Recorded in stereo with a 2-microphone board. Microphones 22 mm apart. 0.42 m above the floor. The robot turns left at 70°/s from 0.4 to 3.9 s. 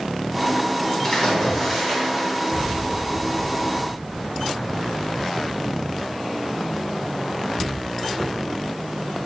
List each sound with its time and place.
1.0 s a splash: 65° left, 1.0 m; by 2.7 s 55° right, 1.0 m